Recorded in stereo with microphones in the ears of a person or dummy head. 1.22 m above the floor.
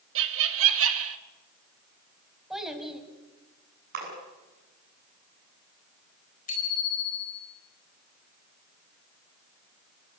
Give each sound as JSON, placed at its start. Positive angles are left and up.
{"t": 0.1, "sound": "laughter", "side_deg": -75, "distance_m": 2.0}
{"t": 2.5, "sound": "a child speaking", "side_deg": -10, "distance_m": 4.0}
{"t": 3.9, "sound": "a splash", "side_deg": -45, "distance_m": 7.5}
{"t": 6.5, "sound": "a bicycle bell", "side_deg": 45, "distance_m": 4.0}